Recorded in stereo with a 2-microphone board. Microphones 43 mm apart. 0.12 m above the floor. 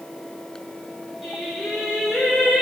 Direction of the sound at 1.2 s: Centre (ahead or behind).